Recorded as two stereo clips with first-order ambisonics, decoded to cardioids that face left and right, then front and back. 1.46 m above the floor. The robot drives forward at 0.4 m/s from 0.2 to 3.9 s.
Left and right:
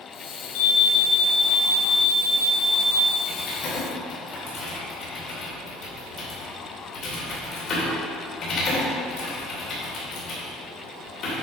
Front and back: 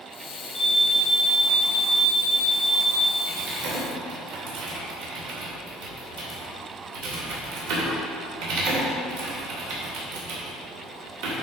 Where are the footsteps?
I don't hear footsteps.